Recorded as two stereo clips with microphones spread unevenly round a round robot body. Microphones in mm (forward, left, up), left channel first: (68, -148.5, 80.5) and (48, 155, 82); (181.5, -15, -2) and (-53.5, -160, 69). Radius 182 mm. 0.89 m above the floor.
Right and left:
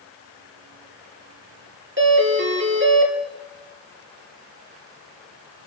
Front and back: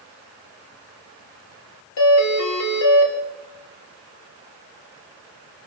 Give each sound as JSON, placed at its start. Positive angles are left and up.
{"t": 2.0, "sound": "a doorbell", "azimuth_deg": 45, "distance_m": 3.5}